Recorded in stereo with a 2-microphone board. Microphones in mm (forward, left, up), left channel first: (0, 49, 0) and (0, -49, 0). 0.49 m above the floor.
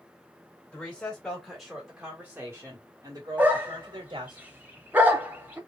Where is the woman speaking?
15° left (ahead or behind), 1.7 m; by 4.4 s 50° right (ahead or behind), 1.8 m.